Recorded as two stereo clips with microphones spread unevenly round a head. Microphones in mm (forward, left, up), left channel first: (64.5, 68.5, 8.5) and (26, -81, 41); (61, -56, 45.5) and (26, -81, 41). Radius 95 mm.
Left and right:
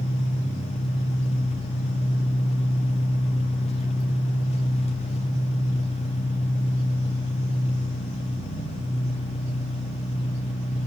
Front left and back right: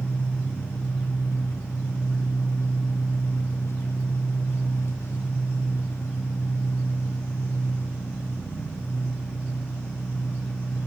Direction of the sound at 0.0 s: 25° left.